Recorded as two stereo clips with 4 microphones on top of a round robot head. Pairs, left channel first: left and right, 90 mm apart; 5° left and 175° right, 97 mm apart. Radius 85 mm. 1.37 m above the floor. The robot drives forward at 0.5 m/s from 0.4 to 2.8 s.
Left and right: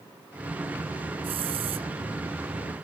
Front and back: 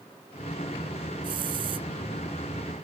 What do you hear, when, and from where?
1.2 s a hiss: 125° right